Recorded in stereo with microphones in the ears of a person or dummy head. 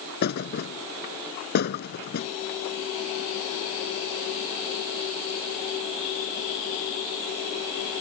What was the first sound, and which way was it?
A thud, 65° left (ahead or behind).